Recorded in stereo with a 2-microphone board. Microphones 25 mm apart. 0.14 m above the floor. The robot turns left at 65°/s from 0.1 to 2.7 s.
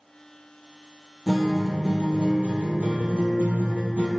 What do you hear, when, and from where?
1.3 s a guitar: 5° left, 0.8 m; by 4.1 s 90° right, 0.8 m